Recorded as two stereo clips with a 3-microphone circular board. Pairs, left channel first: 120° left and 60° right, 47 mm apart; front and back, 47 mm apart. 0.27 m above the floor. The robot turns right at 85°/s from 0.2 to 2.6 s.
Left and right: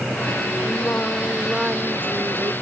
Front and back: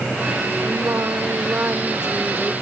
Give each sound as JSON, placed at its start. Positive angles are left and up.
{"t": 0.7, "sound": "singing", "azimuth_deg": 140}